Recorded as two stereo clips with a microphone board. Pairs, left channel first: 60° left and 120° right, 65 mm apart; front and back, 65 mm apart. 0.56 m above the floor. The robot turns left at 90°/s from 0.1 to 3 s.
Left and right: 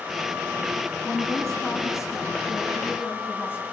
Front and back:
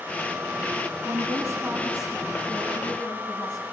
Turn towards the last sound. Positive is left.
turn(degrees=5)